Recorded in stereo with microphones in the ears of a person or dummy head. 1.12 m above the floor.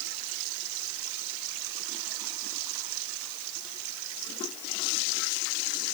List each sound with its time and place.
Only background noise.